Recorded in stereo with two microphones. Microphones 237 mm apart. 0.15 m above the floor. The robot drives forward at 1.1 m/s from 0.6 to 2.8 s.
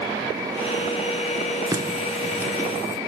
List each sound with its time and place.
1.7 s a running tap: 15° right (ahead or behind), 1.2 m; by 3.0 s 10° right (ahead or behind), 2.5 m